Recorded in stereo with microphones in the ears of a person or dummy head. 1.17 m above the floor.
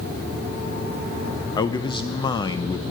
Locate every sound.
1.6 s a man speaking: 20° left (ahead or behind), 0.5 m